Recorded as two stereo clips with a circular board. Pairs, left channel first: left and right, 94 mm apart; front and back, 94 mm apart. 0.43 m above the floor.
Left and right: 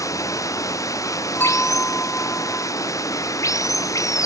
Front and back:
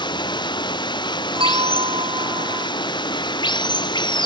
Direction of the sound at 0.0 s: 35° left.